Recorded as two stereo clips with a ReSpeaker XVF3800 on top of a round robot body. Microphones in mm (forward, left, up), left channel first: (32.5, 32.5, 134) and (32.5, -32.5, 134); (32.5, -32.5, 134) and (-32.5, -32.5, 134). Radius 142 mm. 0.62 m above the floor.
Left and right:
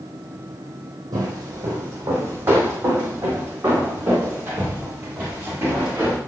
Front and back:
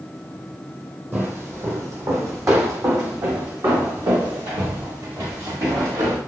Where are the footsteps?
120° right, 1.2 m; by 6.2 s 160° right, 4 m.